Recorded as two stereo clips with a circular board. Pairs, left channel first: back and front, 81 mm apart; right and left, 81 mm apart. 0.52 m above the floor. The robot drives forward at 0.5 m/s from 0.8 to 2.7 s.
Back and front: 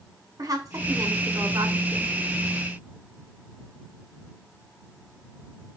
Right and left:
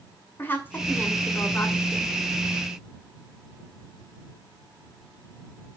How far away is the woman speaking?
About 2 m.